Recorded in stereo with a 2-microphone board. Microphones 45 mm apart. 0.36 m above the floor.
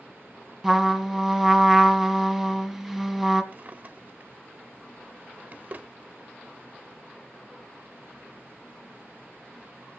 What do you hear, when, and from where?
0.6 s a trumpet: centre (ahead or behind), 1.9 m
3.5 s a drawer: 35° right (ahead or behind), 0.8 m